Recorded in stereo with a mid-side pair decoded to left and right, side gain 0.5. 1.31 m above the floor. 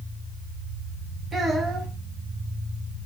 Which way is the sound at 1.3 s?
35° right.